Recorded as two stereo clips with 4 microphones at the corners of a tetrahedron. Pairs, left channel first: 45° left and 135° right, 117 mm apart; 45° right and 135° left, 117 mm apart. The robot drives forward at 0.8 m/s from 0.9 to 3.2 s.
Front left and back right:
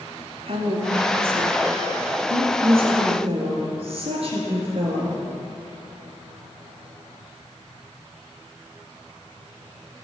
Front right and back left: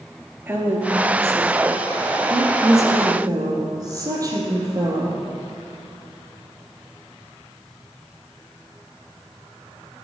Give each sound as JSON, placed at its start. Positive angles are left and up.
{"t": 0.5, "sound": "a woman speaking", "azimuth_deg": -155, "distance_m": 2.5}